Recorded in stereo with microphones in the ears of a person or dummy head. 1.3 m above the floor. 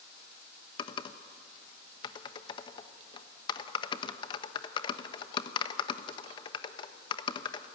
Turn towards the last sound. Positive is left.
turn(degrees=30)  # may be behind; listen again after turning